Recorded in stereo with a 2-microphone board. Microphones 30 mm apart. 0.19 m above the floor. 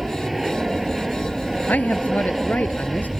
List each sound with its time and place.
0.0 s an aircraft: 5° right (ahead or behind)
1.7 s a man speaking: 70° left (ahead or behind)